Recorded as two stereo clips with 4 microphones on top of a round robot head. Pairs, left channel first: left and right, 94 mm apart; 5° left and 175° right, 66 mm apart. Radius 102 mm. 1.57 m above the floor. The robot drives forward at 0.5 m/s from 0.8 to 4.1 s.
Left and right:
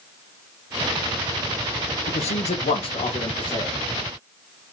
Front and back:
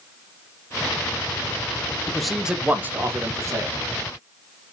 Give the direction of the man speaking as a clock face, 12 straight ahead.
9 o'clock.